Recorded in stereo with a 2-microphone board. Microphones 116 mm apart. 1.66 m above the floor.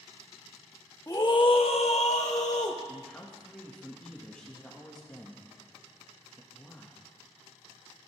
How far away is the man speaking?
About 2 m.